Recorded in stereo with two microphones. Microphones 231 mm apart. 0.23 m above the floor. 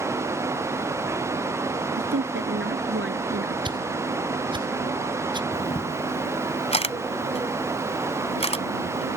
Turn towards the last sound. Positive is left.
turn(degrees=25)  # may be behind; listen again after turning